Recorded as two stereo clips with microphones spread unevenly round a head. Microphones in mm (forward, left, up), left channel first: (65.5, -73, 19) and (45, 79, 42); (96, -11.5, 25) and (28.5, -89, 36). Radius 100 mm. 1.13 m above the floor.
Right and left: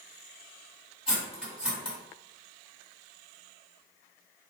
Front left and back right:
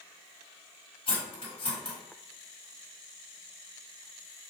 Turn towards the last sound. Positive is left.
turn(degrees=15)